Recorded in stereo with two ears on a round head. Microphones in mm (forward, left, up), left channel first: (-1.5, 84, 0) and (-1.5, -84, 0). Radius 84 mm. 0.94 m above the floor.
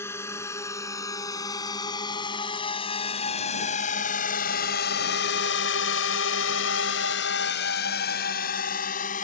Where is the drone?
15° left (ahead or behind); by 9.2 s 45° left (ahead or behind).